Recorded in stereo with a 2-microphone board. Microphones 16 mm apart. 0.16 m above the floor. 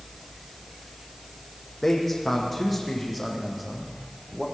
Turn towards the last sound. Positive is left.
turn(degrees=-15)  # may be behind; listen again after turning